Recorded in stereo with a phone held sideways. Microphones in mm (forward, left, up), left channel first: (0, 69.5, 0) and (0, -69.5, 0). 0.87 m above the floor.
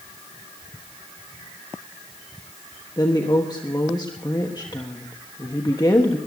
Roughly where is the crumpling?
I don't hear crumpling.